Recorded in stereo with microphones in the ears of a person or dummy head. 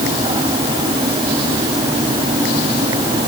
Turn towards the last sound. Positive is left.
No sound to turn to.